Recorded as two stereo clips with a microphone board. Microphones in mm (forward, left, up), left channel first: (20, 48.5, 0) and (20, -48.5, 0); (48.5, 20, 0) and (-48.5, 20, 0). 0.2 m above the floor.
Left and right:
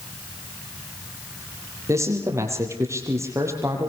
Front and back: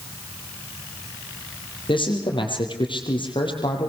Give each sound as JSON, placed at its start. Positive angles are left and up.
{"t": 1.9, "sound": "a man speaking", "azimuth_deg": -30, "distance_m": 7.0}